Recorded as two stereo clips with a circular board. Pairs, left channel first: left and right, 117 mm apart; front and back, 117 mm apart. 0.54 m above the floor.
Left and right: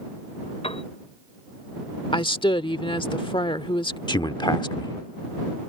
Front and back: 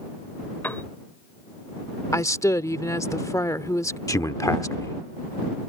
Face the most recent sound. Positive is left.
turn(degrees=50)